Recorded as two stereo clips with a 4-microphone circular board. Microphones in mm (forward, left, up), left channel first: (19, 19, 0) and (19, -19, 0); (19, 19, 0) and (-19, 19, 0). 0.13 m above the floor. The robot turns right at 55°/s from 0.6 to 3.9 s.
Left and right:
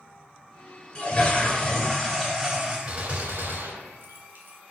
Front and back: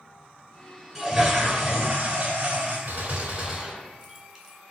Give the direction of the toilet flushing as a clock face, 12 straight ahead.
8 o'clock.